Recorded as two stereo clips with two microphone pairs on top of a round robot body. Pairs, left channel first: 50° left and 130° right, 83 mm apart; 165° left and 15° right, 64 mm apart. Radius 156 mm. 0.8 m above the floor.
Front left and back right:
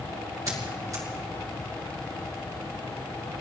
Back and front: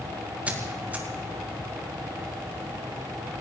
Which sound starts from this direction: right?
A squeak, at 0.5 s.